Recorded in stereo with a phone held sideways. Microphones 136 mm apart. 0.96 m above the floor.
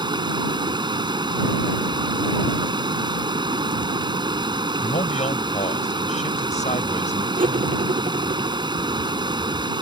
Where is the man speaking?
60° left (ahead or behind).